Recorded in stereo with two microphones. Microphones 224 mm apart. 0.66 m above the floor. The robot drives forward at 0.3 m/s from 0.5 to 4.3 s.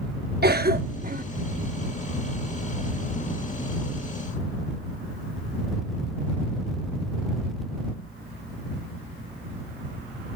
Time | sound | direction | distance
0.4 | a cough | 45° right (ahead or behind) | ?